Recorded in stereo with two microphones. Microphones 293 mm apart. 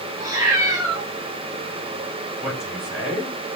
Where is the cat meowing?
10° right (ahead or behind), 7.5 m.